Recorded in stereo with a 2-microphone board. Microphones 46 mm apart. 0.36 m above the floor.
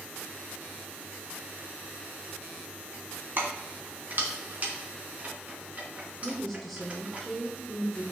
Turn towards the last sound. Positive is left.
turn(degrees=5)  # may be behind; listen again after turning